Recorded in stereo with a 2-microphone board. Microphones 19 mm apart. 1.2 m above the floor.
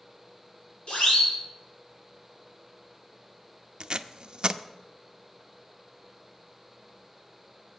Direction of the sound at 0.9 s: 85° left.